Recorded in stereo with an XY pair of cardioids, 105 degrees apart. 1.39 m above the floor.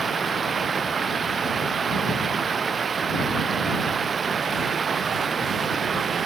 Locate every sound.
0.0 s running water: 35° right